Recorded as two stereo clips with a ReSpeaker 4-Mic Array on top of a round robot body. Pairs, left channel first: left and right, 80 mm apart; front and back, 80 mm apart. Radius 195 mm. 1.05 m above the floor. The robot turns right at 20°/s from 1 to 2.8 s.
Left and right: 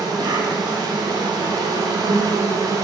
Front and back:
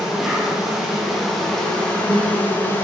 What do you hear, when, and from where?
0.0 s an insect: 95° right, 0.9 m; by 2.8 s 55° right, 0.9 m